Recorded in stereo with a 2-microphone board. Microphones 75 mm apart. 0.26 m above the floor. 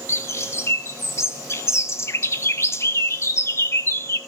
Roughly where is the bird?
Left.